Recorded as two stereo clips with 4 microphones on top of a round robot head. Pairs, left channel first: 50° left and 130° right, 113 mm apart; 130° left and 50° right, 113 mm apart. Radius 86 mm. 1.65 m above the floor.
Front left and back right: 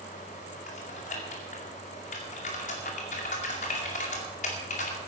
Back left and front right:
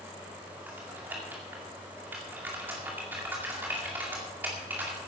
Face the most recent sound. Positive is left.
turn(degrees=25)